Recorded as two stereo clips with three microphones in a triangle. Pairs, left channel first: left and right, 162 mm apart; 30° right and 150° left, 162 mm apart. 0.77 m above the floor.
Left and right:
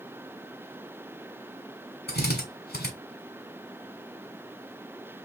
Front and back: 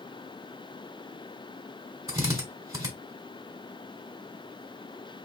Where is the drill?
80° left, 1.8 m.